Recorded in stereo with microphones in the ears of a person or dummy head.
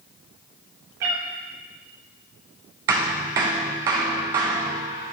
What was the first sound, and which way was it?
A cat meowing, 20° right (ahead or behind).